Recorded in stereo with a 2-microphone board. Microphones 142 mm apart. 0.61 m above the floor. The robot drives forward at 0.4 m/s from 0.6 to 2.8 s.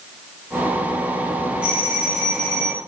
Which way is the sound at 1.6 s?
5° right (ahead or behind).